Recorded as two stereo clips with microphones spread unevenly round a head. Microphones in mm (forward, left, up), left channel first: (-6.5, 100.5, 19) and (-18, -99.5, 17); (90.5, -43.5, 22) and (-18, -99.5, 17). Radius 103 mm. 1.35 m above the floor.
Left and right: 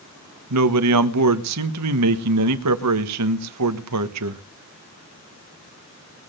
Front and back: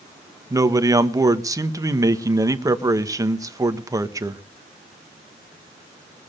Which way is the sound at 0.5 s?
90° right.